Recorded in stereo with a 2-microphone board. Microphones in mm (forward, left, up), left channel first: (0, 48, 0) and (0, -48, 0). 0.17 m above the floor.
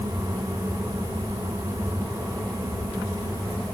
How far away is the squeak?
No squeak in this recording.